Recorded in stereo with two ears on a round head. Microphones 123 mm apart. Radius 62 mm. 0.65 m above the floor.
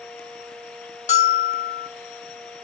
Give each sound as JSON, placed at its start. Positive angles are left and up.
{"t": 1.1, "sound": "a bell", "side_deg": 55, "distance_m": 1.9}